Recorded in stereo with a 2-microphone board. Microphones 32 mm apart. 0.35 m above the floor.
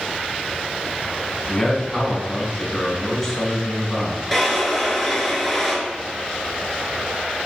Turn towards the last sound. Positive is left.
turn(degrees=5)  # may be behind; listen again after turning